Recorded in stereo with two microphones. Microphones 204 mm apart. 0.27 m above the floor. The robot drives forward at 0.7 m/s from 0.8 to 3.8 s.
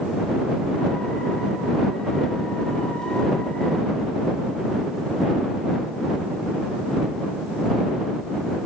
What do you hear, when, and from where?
Only background noise.